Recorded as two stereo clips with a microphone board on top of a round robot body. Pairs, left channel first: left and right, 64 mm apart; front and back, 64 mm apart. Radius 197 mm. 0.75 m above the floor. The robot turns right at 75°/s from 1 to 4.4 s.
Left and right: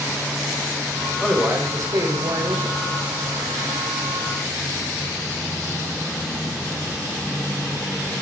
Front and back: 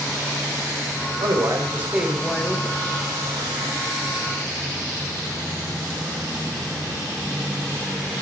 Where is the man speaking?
160° right, 4.5 m; by 2.8 s 45° right, 4.5 m.